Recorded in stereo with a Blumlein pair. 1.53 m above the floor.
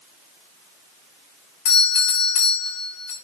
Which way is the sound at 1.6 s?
45° left.